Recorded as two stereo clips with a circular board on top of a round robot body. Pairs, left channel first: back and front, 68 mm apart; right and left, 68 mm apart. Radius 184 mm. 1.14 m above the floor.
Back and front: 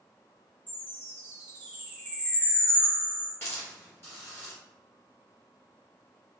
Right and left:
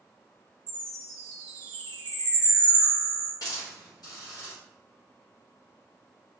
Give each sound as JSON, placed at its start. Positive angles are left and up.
{"t": 0.7, "sound": "a chime", "azimuth_deg": 75, "distance_m": 0.9}
{"t": 3.4, "sound": "a hiss", "azimuth_deg": -125, "distance_m": 1.7}